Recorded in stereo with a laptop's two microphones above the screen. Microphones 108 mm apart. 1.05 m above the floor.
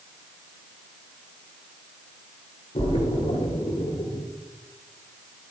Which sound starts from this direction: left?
A splash, at 2.8 s.